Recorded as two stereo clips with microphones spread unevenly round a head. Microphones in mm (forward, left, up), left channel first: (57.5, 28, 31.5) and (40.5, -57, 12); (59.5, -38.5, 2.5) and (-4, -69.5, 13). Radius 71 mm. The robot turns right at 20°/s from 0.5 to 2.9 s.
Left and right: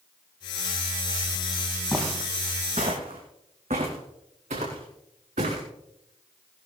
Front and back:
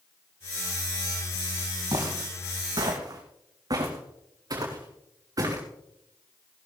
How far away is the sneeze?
I don't hear a sneeze.